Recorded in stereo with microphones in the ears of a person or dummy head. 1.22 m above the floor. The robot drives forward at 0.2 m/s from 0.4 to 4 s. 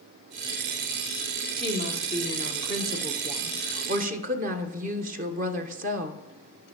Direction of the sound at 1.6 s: 35° right (ahead or behind).